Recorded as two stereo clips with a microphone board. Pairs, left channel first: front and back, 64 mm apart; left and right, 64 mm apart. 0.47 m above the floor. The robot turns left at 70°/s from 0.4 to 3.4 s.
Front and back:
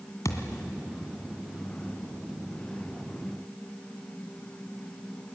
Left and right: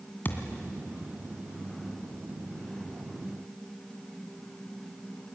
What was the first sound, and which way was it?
A thud, 30° left.